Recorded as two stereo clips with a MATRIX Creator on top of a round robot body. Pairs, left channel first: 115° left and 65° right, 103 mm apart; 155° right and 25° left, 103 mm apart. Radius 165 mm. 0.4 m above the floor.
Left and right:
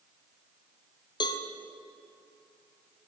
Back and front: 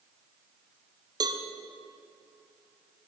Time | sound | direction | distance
1.2 | a cowbell | 70° left | 0.6 m